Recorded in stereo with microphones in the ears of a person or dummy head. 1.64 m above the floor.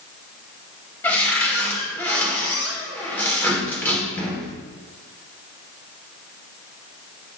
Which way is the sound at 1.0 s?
15° left (ahead or behind).